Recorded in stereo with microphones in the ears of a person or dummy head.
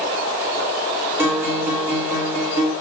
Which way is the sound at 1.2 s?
10° right (ahead or behind).